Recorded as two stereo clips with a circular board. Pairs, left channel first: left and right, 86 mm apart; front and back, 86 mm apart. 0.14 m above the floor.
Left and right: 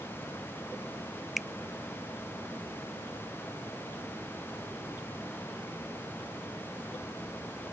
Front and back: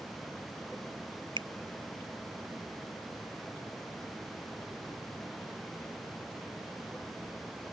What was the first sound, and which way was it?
A finger snap, straight behind.